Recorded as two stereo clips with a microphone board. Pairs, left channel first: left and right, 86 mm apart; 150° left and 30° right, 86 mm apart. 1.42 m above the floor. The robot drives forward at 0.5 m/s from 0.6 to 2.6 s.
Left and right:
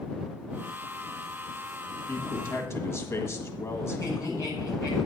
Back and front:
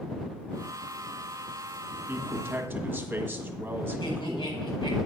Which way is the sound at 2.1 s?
30° left.